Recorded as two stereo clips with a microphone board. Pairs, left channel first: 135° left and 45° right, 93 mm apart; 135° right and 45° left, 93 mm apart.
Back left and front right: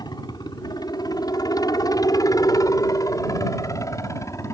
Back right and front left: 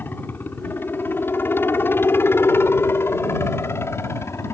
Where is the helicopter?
160° left; by 4.5 s 175° left.